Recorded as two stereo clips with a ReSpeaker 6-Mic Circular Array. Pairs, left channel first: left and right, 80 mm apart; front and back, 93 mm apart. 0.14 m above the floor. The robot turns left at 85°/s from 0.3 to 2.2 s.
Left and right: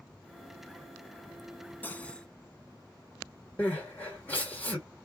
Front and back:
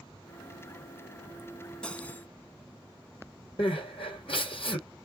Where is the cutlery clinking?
65° left, 0.6 m; by 2.3 s 35° left, 0.6 m.